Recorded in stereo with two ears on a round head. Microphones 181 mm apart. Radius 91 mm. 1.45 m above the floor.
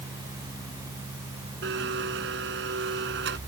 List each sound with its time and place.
1.6 s a blender: 60° right (ahead or behind)